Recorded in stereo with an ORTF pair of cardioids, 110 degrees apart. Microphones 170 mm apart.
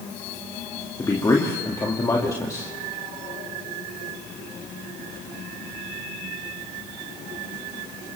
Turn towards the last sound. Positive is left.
turn(degrees=20)